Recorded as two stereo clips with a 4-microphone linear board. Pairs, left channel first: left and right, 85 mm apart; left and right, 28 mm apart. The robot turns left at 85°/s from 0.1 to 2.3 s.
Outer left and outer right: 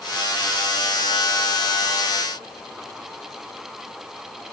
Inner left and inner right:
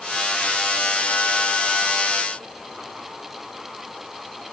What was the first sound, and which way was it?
Only background noise.